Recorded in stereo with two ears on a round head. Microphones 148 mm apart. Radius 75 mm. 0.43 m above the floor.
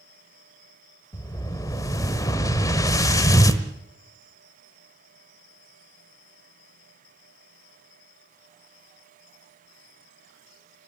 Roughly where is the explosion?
Left.